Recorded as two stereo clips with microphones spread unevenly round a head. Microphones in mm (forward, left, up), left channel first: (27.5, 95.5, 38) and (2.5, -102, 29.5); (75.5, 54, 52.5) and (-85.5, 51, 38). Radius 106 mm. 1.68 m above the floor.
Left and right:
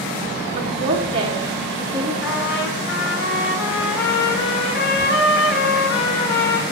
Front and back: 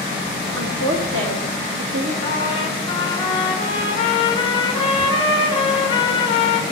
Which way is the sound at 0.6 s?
160° right.